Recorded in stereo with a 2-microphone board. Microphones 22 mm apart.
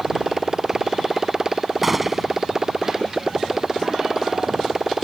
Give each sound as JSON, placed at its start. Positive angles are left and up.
{"t": 0.0, "sound": "a motorcycle", "side_deg": -20}
{"t": 1.8, "sound": "a gunshot", "side_deg": -10}